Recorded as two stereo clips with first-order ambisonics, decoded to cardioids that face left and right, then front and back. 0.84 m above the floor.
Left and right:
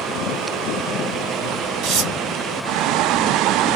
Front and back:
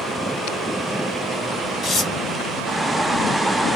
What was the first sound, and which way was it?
Tearing paper, 55° right.